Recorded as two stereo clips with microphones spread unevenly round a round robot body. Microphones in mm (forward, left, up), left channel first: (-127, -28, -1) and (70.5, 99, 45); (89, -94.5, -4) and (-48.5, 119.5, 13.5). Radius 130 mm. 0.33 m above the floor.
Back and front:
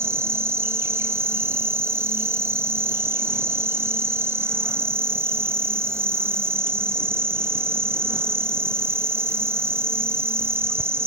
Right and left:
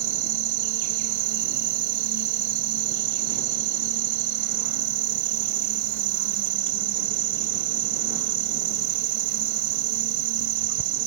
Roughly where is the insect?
Behind left.